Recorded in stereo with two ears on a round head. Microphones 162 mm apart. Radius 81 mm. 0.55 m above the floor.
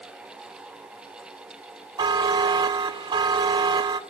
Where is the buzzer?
25° right (ahead or behind), 1.0 m.